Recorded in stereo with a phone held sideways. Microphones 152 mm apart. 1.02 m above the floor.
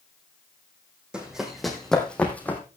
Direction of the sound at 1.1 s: 5° right (ahead or behind).